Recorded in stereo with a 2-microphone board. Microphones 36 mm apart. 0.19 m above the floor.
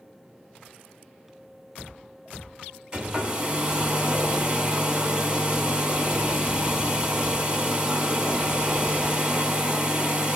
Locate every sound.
2.9 s a hair dryer: 20° right (ahead or behind), 1.4 m